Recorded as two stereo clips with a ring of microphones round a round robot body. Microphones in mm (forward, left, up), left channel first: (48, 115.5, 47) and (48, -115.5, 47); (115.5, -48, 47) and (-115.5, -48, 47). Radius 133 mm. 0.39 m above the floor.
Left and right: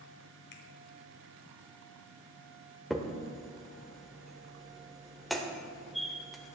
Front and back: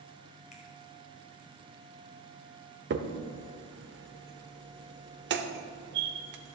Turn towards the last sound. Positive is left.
turn(degrees=180)